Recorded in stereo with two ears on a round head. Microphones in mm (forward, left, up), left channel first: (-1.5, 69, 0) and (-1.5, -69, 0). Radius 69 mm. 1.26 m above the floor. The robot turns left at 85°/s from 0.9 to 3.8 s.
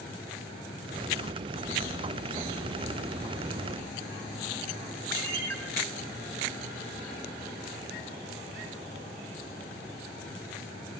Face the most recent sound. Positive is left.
turn(degrees=-85)